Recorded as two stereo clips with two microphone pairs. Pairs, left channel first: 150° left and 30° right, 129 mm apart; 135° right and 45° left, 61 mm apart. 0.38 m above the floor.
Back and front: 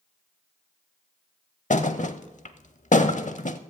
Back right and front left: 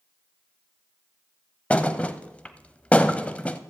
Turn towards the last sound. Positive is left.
turn(degrees=160)